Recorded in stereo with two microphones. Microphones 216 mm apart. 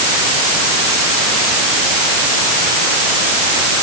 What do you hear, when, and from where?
Only background noise.